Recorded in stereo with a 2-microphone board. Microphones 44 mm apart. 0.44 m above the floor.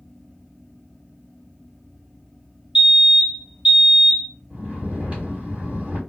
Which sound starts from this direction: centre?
A fire alarm, at 2.8 s.